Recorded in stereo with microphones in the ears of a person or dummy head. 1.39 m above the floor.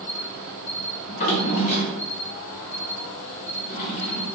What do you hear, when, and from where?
0.0 s an insect: 65° left (ahead or behind), 1.6 m
1.1 s a drawer: 40° left (ahead or behind), 0.6 m